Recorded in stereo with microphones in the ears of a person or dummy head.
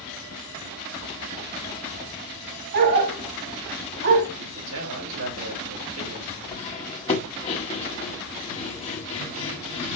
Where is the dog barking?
65° right (ahead or behind), 2.5 m.